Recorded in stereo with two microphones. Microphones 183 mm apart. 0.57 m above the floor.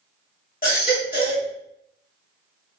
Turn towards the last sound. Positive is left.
turn(degrees=50)  # may be behind; listen again after turning